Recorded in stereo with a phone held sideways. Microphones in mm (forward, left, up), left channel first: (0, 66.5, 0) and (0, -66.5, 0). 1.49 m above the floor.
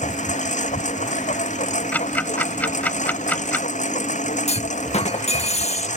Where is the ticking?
10° left (ahead or behind).